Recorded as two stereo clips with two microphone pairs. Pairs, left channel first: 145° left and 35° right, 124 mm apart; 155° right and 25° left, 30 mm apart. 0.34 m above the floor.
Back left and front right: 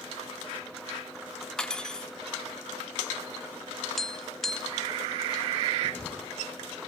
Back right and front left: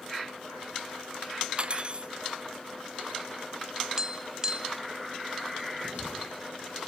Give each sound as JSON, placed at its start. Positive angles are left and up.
{"t": 1.6, "sound": "cutlery clinking", "azimuth_deg": 65, "distance_m": 0.6}
{"t": 4.0, "sound": "tapping", "azimuth_deg": 60, "distance_m": 1.1}
{"t": 5.8, "sound": "writing", "azimuth_deg": 70, "distance_m": 7.0}